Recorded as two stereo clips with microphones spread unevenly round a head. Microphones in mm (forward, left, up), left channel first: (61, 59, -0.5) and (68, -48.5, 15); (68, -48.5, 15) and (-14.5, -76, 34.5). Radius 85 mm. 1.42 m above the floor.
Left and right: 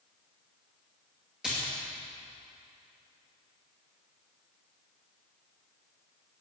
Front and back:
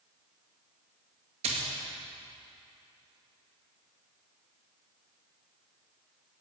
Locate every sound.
1.4 s a splash: 170° right, 2 m